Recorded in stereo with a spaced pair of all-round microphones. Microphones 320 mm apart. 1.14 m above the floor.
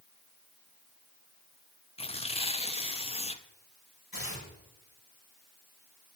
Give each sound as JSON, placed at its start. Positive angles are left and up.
{"t": 2.0, "sound": "tearing paper", "side_deg": 20, "distance_m": 0.5}
{"t": 4.1, "sound": "tearing paper", "side_deg": 80, "distance_m": 4.5}